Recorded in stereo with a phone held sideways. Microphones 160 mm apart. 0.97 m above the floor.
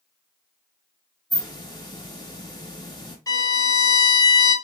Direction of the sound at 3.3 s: 25° left (ahead or behind).